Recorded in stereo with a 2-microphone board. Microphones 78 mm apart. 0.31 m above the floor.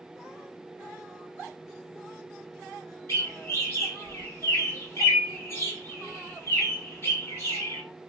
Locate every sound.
3.1 s a bird: 35° left (ahead or behind), 1.9 m